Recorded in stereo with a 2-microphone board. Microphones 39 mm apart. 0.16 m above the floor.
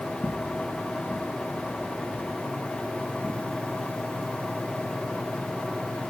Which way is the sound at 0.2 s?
25° left (ahead or behind).